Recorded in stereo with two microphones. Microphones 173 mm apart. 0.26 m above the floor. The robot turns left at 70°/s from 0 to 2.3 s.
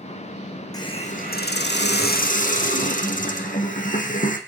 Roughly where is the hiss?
Behind.